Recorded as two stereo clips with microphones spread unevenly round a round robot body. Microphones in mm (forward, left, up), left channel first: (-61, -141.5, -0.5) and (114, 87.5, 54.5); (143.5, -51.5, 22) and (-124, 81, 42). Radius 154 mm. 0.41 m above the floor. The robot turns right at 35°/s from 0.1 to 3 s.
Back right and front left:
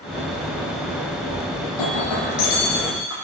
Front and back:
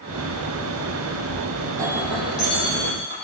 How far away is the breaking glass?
About 9 m.